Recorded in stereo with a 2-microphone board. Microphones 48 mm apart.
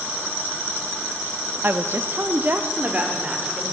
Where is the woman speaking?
45° right (ahead or behind), 0.7 m; by 3.7 s 25° right (ahead or behind), 2.5 m.